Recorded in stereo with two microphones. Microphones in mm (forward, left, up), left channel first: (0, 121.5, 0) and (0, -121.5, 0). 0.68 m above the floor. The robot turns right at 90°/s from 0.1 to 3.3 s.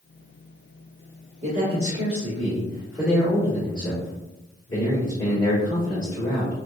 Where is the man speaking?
150° right, 1.5 m; by 6.5 s 20° left, 1.5 m.